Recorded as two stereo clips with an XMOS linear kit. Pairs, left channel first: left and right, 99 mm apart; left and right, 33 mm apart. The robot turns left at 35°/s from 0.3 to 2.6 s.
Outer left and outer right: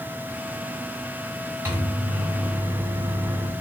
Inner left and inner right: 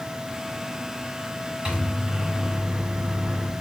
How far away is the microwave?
About 1.5 m.